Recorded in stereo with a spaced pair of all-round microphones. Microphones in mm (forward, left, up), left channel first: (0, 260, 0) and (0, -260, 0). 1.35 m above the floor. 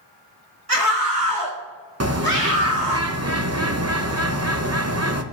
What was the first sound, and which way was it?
A scream, 90° right.